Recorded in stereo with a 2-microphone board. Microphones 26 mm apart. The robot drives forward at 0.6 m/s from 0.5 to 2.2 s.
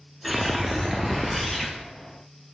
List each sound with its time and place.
0.2 s a whoosh: centre (ahead or behind), 0.6 m